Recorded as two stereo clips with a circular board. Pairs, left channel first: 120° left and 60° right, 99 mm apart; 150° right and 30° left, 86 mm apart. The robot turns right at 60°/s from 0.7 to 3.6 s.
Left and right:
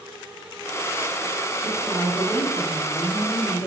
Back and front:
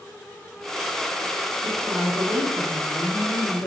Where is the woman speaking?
30° left, 2.5 m; by 3.7 s 150° left, 2.5 m.